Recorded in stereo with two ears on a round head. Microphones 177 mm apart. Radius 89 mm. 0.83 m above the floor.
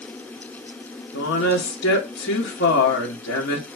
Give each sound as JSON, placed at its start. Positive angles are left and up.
{"t": 1.1, "sound": "a woman speaking", "side_deg": 60, "distance_m": 1.5}